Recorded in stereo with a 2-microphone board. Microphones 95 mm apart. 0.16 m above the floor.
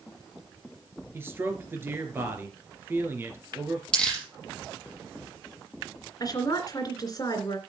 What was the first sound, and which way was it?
A man speaking, 25° right (ahead or behind).